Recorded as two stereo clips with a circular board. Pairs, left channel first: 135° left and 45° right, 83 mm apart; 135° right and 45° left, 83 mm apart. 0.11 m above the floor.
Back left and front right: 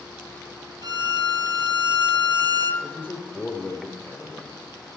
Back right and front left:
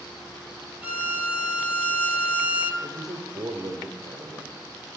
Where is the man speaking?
75° left, 2.5 m.